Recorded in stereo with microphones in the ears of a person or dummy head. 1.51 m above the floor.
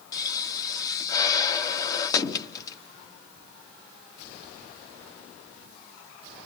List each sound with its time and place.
0.1 s a pop: 25° left (ahead or behind), 1.1 m